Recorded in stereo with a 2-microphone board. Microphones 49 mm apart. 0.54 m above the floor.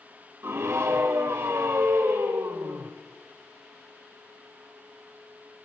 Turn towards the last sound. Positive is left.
turn(degrees=-65)  # may be behind; listen again after turning